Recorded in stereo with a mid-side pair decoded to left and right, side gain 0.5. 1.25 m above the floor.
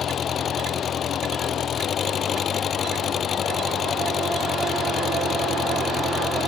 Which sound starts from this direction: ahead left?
An engine running, at 0.0 s.